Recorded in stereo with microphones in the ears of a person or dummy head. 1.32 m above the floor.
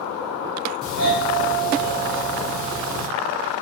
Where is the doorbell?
45° right (ahead or behind), 1.4 m.